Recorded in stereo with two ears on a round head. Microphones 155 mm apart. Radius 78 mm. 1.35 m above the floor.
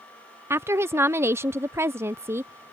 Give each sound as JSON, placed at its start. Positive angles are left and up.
{"t": 0.5, "sound": "a woman speaking", "side_deg": -15}